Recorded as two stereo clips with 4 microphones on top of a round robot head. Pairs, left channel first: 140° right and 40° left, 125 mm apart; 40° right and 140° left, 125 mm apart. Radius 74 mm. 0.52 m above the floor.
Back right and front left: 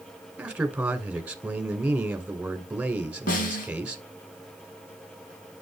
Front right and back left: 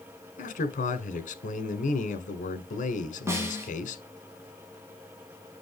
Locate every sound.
0.4 s a man speaking: 40° right, 1.8 m
3.3 s a snare drum: 150° right, 4 m